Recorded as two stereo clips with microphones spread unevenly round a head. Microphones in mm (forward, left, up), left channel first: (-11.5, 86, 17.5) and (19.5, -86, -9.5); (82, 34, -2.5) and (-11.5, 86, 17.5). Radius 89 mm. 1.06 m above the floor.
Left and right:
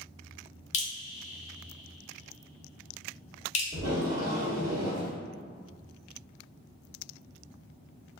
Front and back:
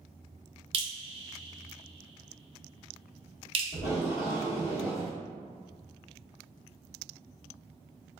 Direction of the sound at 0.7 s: 145° left.